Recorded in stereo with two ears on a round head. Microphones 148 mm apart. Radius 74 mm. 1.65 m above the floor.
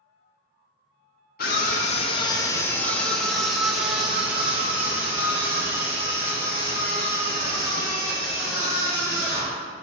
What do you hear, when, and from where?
1.4 s a scream: 55° left (ahead or behind), 0.6 m; by 9.6 s 20° right (ahead or behind), 4.5 m